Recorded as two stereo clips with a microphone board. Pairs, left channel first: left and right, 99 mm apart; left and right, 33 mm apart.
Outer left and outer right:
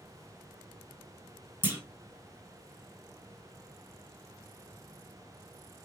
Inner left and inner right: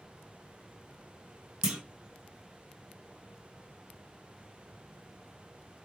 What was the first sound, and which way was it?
A clunk, 20° right (ahead or behind).